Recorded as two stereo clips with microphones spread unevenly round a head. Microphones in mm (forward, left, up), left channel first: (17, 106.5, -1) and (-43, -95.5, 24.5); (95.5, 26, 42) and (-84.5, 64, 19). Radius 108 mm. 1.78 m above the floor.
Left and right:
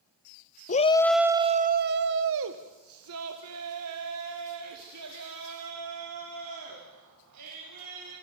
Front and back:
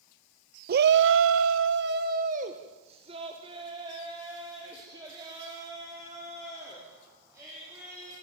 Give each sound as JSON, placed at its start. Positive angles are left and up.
{"t": 0.7, "sound": "a shout", "azimuth_deg": 130, "distance_m": 0.8}